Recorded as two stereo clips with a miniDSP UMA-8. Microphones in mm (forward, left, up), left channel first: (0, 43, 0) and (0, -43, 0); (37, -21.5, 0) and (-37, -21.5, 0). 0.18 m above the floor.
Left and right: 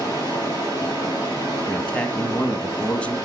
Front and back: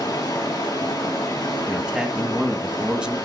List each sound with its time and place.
0.0 s running water: 35° left, 4 m
1.7 s a man speaking: 135° left, 1.0 m